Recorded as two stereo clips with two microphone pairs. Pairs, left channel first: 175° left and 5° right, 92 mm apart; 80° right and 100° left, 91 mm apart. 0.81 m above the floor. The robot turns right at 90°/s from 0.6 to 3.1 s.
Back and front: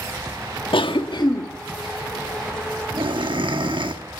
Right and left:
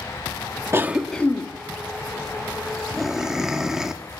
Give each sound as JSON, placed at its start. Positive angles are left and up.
{"t": 0.7, "sound": "a cough", "azimuth_deg": 160, "distance_m": 1.2}